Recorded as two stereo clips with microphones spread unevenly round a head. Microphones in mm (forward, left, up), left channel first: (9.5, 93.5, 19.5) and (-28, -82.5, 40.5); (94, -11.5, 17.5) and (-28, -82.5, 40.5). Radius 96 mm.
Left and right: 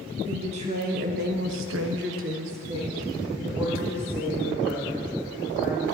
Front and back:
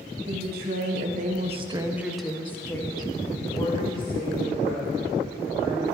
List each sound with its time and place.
0.3 s a woman speaking: 160° right, 1.9 m; by 5.8 s 15° right, 5 m